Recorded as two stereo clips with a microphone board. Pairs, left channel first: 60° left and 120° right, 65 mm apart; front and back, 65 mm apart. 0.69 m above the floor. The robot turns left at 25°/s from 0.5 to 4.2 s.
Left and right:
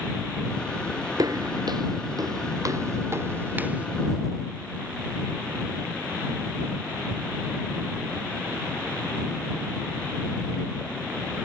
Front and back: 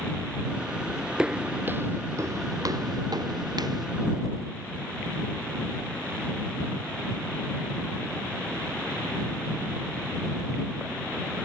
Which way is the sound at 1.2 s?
100° right.